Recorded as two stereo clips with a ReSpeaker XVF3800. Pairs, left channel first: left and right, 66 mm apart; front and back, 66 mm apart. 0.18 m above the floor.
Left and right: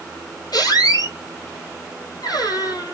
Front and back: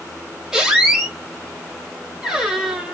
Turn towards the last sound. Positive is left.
turn(degrees=95)